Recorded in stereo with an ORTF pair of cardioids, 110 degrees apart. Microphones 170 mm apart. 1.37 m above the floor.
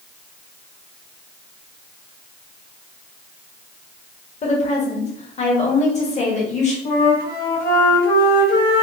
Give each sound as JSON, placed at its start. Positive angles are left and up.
{"t": 4.4, "sound": "a woman speaking", "azimuth_deg": 40, "distance_m": 1.6}
{"t": 6.8, "sound": "a flute", "azimuth_deg": 70, "distance_m": 1.5}